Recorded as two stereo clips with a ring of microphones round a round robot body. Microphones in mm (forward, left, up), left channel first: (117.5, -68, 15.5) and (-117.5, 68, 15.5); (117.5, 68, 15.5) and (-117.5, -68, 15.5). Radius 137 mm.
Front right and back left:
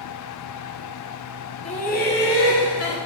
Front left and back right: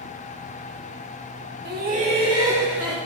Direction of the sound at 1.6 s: 100° right.